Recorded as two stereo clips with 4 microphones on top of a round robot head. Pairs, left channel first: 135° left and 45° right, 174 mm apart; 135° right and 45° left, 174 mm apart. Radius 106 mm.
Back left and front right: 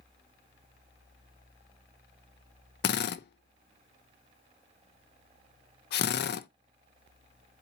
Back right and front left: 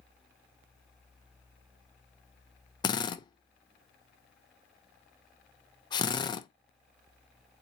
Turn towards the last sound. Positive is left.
turn(degrees=160)